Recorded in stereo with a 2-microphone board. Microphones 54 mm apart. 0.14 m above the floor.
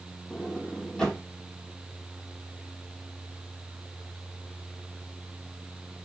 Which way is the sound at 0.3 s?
15° left (ahead or behind).